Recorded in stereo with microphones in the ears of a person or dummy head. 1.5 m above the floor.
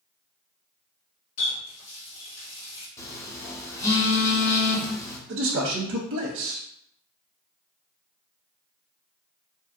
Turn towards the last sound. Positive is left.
turn(degrees=-70)  # may be behind; listen again after turning